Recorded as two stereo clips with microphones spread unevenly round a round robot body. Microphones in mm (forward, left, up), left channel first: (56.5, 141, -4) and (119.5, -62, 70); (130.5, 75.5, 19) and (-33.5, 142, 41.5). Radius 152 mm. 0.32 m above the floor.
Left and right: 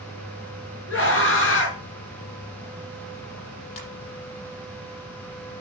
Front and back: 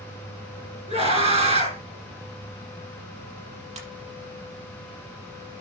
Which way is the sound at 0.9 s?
105° left.